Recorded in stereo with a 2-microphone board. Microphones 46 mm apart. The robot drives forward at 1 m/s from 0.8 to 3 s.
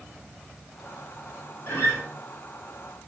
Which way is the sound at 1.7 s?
70° left (ahead or behind).